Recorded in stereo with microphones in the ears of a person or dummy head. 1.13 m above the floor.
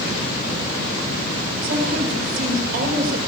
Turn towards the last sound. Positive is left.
turn(degrees=-55)  # may be behind; listen again after turning